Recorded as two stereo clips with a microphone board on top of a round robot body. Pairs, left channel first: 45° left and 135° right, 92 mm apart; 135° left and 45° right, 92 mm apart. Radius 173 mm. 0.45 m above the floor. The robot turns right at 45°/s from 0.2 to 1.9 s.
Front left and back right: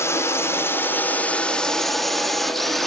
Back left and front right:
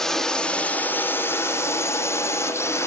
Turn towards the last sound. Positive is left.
turn(degrees=130)